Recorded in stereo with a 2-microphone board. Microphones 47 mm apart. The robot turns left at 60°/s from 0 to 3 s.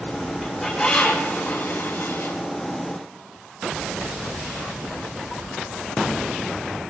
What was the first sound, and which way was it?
A bird, 165° right.